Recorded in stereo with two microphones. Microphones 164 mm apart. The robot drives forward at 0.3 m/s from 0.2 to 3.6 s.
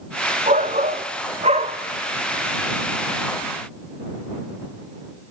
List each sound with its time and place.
0.5 s a shout: 45° right (ahead or behind), 1.1 m; by 1.8 s 40° right (ahead or behind), 1.2 m